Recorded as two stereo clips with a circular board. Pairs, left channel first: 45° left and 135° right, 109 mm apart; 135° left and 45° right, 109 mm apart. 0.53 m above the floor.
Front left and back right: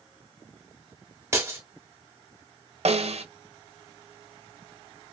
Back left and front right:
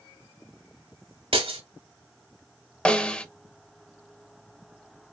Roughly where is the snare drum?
Behind right.